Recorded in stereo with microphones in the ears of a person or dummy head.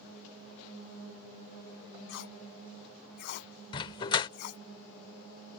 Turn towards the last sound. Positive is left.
turn(degrees=30)  # may be behind; listen again after turning